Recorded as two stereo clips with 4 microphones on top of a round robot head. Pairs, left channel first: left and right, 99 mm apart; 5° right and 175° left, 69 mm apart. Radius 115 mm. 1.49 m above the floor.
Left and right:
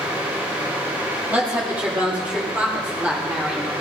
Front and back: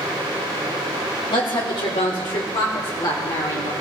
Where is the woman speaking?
15° right, 2.5 m; by 3.7 s 10° right, 4.5 m.